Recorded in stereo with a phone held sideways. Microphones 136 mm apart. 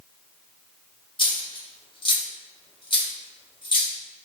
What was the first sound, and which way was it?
A dropped coin, 40° left (ahead or behind).